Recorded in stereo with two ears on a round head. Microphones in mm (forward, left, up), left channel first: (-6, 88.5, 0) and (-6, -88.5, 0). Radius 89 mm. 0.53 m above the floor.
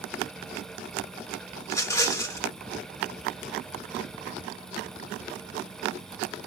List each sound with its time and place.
1.6 s a rattle: 15° left (ahead or behind), 1.0 m